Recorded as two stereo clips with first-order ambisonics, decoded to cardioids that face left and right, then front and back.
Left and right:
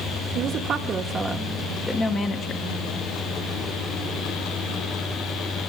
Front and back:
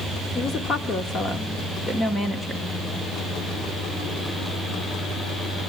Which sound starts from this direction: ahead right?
A woman speaking, at 0.3 s.